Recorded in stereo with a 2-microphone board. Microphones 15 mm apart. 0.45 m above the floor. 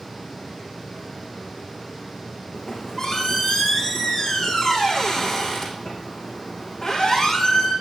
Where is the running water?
50° left (ahead or behind), 4.5 m.